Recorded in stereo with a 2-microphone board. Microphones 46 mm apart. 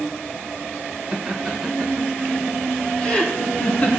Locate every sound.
1.1 s laughter: 10° right (ahead or behind), 3 m; by 3.9 s 30° left (ahead or behind), 3.5 m